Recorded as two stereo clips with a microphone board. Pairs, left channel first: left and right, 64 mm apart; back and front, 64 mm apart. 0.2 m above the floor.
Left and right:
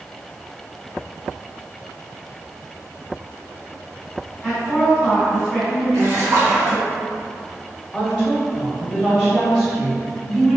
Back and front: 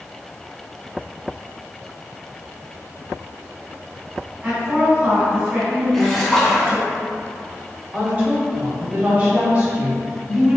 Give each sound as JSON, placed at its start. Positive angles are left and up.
{"t": 4.4, "sound": "a woman speaking", "azimuth_deg": -10, "distance_m": 1.7}
{"t": 5.9, "sound": "a splash", "azimuth_deg": -95, "distance_m": 0.6}
{"t": 7.9, "sound": "a woman speaking", "azimuth_deg": -35, "distance_m": 1.2}